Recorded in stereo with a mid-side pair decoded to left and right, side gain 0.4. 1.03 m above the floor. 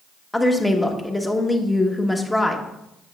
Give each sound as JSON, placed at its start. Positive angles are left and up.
{"t": 0.3, "sound": "a woman speaking", "azimuth_deg": 10, "distance_m": 1.2}